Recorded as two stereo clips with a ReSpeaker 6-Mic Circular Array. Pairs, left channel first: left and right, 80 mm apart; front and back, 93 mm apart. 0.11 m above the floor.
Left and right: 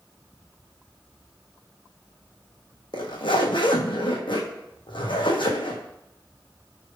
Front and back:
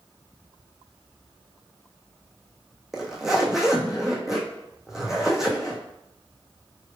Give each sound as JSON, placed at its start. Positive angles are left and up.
{"t": 2.9, "sound": "a zipper", "azimuth_deg": 95, "distance_m": 1.0}